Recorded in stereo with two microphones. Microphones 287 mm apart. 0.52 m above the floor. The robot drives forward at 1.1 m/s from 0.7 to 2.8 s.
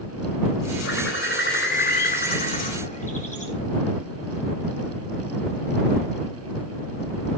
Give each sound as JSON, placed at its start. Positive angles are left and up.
{"t": 0.8, "sound": "a bird", "side_deg": 50, "distance_m": 2.0}